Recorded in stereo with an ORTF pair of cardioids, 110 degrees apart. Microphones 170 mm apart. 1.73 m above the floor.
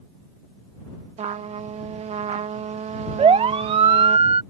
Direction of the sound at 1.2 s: 40° right.